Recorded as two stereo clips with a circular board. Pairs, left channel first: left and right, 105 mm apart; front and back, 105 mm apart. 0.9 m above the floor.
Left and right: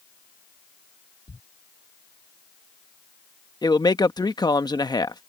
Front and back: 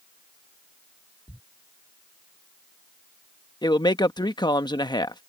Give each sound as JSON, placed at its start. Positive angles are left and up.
{"t": 1.3, "sound": "a thud", "azimuth_deg": 90}
{"t": 3.6, "sound": "a man speaking", "azimuth_deg": 45}